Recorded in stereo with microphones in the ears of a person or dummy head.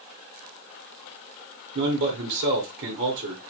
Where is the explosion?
No explosion in this recording.